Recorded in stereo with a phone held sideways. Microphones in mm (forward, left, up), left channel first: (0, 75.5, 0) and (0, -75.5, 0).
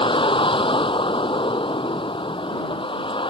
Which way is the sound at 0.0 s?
35° left (ahead or behind).